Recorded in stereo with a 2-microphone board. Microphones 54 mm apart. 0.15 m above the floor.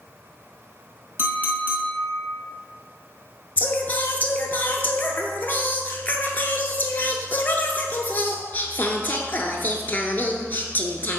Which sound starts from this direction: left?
Singing, at 3.6 s.